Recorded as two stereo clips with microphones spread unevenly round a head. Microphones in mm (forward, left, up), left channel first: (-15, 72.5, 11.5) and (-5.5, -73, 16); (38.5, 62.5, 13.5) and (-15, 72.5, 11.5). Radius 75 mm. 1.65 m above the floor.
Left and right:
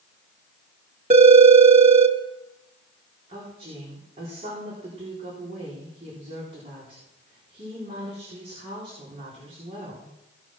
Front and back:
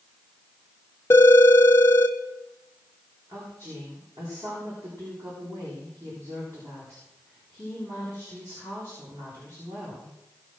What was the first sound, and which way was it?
A phone ringing, 50° right.